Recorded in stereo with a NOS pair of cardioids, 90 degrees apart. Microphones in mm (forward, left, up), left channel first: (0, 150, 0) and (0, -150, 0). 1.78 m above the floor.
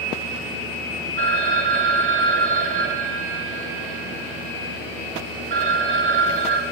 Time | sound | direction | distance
1.2 | a phone ringing | 40° right | 3 m